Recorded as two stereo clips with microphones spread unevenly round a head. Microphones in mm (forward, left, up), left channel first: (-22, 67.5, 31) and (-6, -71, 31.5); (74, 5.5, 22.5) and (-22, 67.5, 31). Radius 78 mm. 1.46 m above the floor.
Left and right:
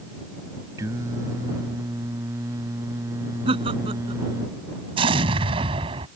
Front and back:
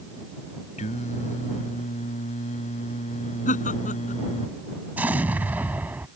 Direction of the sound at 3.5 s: 25° right.